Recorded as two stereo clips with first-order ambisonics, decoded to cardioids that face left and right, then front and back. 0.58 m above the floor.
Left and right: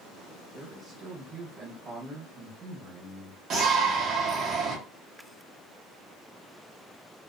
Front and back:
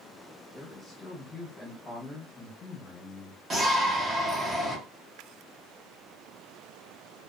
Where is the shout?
120° right, 0.8 m.